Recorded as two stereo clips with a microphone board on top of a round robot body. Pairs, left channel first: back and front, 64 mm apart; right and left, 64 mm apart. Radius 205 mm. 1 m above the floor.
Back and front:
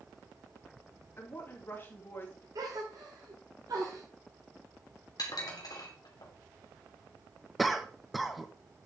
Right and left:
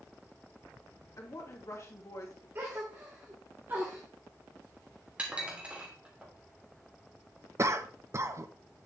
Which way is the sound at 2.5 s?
30° left.